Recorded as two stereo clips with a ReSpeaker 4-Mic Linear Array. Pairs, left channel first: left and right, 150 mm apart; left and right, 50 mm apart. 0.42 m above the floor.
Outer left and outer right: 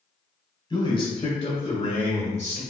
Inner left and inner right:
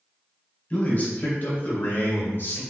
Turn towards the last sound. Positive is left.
turn(degrees=50)  # may be behind; listen again after turning